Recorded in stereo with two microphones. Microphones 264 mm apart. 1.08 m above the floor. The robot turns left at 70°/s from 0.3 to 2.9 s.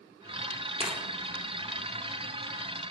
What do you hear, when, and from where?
0.8 s tearing paper: 25° right (ahead or behind), 2.5 m; by 0.9 s 15° right (ahead or behind), 2.5 m